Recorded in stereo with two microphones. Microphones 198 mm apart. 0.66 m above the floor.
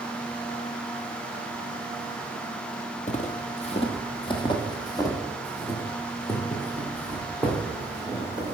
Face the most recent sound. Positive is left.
turn(degrees=5)  # may be behind; listen again after turning